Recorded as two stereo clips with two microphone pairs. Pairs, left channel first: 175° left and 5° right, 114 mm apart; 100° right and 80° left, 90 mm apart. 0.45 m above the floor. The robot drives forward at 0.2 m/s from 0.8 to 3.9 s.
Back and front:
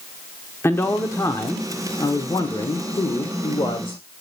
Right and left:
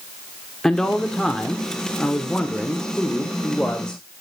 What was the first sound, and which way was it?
A man speaking, 175° right.